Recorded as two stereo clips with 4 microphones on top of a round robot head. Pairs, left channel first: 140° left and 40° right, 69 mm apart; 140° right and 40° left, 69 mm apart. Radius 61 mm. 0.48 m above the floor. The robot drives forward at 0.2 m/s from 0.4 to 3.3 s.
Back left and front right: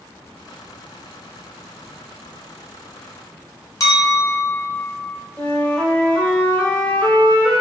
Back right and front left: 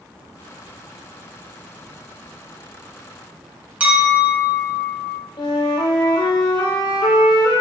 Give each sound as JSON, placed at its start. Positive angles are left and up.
{"t": 3.8, "sound": "a clink", "azimuth_deg": 105, "distance_m": 1.3}
{"t": 5.4, "sound": "a flute", "azimuth_deg": -150, "distance_m": 0.7}